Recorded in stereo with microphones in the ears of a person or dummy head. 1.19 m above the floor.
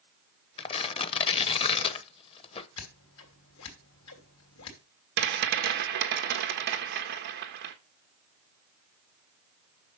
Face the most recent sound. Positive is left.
turn(degrees=-55)  # may be behind; listen again after turning